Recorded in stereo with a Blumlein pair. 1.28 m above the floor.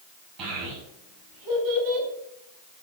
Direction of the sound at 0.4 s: 40° right.